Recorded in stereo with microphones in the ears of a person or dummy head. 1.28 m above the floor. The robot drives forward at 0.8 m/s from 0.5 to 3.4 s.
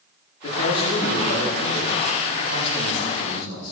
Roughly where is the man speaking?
Left.